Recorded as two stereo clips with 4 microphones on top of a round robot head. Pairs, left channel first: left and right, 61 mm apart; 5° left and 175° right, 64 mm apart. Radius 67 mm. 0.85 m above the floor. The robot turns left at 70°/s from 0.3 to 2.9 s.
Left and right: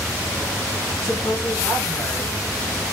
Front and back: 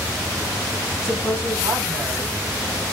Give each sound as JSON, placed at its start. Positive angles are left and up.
{"t": 1.0, "sound": "a woman speaking", "azimuth_deg": -170, "distance_m": 1.6}